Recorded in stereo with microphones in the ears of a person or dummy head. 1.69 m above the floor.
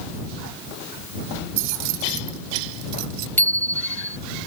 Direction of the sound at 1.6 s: 75° right (ahead or behind).